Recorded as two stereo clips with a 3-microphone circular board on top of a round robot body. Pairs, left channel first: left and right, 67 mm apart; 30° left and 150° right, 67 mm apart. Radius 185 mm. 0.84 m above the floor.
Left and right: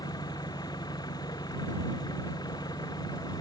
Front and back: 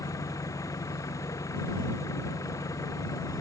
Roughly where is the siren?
I don't hear a siren.